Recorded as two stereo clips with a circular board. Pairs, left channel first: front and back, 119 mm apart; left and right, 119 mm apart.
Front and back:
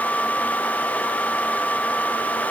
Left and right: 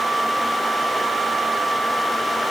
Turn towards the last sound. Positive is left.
No sound to turn to.